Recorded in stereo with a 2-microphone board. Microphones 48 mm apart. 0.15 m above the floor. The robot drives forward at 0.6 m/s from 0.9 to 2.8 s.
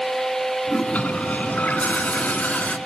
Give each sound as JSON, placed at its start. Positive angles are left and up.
{"t": 0.7, "sound": "a toilet flushing", "side_deg": 30, "distance_m": 1.1}